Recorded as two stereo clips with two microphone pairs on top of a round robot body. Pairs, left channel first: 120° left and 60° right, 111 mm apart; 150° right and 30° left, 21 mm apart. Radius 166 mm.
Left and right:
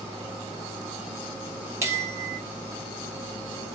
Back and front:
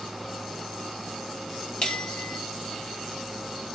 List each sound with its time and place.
1.8 s a bell: 125° right, 1.7 m